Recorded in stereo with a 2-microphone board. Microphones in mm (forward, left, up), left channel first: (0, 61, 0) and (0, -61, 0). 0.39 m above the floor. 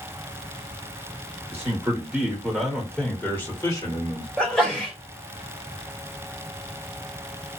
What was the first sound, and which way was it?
A man speaking, 25° right (ahead or behind).